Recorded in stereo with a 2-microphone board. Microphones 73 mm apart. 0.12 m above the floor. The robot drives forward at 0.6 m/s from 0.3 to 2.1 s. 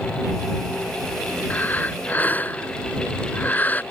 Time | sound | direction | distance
1.5 | breathing | 25° left (ahead or behind) | ?